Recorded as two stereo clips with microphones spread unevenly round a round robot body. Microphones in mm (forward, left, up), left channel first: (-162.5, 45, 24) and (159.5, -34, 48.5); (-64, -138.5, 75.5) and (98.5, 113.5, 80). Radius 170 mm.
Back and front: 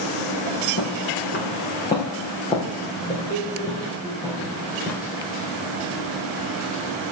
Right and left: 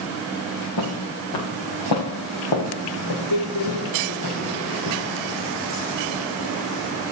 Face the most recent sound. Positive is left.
turn(degrees=-100)